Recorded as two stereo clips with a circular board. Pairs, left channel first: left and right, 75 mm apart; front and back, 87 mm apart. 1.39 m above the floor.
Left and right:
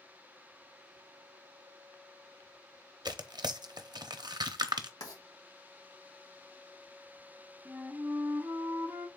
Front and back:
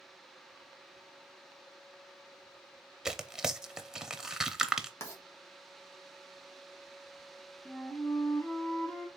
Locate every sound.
3.0 s tearing paper: 95° right, 0.6 m
5.0 s writing: 55° left, 1.5 m
7.7 s a flute: 60° right, 1.1 m